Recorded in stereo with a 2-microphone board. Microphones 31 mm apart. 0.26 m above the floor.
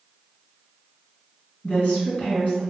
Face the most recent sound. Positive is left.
turn(degrees=55)  # may be behind; listen again after turning